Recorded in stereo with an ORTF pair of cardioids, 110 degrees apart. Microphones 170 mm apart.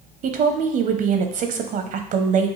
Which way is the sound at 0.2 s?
50° right.